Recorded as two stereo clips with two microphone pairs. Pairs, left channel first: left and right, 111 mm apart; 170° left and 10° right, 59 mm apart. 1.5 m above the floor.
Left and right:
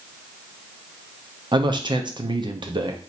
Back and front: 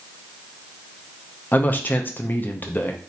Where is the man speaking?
135° right, 0.7 m.